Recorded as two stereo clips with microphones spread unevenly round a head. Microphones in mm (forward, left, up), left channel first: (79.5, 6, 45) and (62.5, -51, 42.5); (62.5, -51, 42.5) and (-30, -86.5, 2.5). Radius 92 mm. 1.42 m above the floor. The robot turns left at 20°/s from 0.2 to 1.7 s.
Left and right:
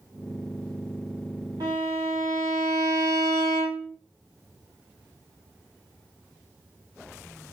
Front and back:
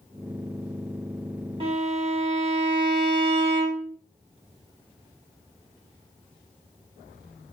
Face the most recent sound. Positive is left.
turn(degrees=-115)